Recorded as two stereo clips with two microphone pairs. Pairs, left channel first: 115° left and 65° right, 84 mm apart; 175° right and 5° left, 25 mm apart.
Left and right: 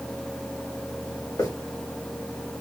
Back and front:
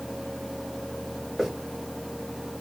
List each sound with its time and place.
1.4 s a hiss: 75° left, 1.5 m